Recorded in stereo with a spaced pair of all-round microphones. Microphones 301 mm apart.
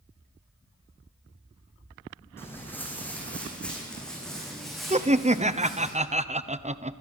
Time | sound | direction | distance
2.4 | footsteps | 10° left (ahead or behind) | 6 m
4.9 | laughter | 20° right (ahead or behind) | 1.0 m